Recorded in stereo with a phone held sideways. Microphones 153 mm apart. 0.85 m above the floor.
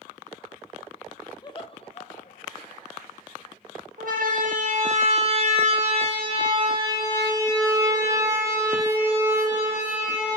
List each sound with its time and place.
1.4 s laughter: 25° left (ahead or behind), 0.9 m; by 2.9 s 60° left (ahead or behind), 1.8 m
4.0 s a siren: 60° right (ahead or behind), 3 m; by 10.4 s 10° right (ahead or behind), 5.5 m